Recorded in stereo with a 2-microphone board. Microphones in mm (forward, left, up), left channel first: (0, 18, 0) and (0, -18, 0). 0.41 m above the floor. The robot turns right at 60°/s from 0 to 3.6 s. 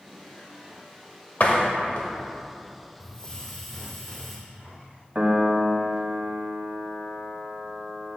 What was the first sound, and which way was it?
A door slam, 50° left (ahead or behind).